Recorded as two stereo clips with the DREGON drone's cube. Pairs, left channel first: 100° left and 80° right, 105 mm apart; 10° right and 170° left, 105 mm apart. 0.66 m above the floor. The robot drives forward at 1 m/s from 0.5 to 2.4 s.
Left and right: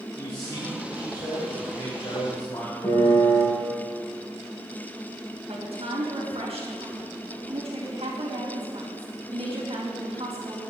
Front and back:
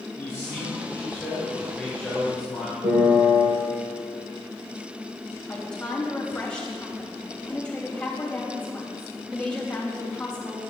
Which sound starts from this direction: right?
A woman speaking, at 5.5 s.